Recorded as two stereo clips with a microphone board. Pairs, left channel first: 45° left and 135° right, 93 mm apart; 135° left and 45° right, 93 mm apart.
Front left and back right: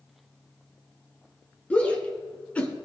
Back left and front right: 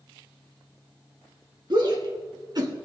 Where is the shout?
25° right, 2.5 m.